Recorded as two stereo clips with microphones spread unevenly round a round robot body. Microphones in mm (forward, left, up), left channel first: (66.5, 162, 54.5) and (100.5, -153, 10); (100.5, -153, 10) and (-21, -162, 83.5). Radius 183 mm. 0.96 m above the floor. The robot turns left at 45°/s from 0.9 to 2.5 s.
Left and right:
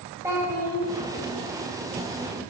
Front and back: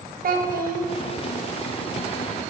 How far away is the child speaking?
About 0.9 m.